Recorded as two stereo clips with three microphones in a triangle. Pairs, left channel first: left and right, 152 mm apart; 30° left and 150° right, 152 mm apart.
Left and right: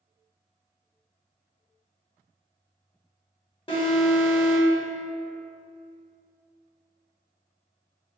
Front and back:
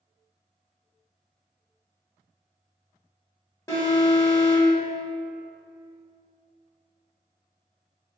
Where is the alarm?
85° left, 0.7 m.